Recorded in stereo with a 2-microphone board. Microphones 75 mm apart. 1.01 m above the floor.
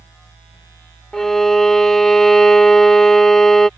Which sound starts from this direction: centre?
A violin, at 1.1 s.